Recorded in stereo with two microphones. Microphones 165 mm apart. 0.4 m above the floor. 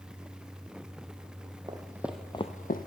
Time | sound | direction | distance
1.7 | footsteps | 25° right (ahead or behind) | 1.0 m